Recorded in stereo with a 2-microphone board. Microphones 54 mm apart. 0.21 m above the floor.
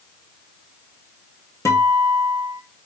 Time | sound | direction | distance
1.6 | a guitar | 65° left (ahead or behind) | 1.0 m